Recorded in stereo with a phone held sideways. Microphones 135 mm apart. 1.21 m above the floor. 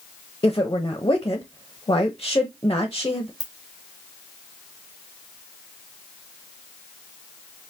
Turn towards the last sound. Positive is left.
turn(degrees=-30)  # may be behind; listen again after turning